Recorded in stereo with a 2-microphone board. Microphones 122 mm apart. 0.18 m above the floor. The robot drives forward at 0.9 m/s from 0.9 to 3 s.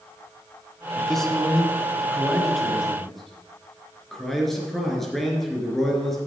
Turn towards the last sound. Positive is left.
turn(degrees=0)  # may be behind; listen again after turning